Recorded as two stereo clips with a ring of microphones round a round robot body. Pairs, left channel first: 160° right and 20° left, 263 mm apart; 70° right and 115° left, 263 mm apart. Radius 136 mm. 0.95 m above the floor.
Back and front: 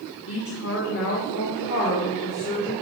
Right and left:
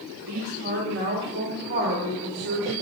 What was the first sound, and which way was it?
A woman speaking, 165° left.